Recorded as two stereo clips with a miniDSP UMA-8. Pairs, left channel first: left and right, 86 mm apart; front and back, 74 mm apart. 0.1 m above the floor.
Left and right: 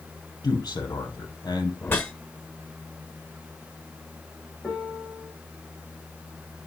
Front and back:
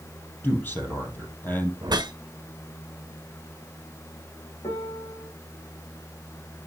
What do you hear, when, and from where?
0.4 s a man speaking: 60° left, 3.5 m
1.8 s a whoosh: 155° left, 1.3 m
4.6 s a piano: 5° left, 4.5 m